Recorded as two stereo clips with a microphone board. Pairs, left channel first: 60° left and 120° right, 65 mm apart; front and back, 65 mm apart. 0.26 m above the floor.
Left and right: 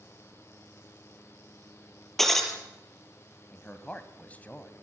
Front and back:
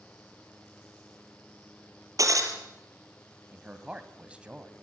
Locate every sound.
2.2 s breaking glass: 145° left, 4 m
3.5 s a man speaking: 115° left, 2 m